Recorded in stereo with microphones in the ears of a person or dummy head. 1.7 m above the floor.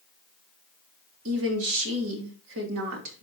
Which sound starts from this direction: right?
A woman speaking, at 1.2 s.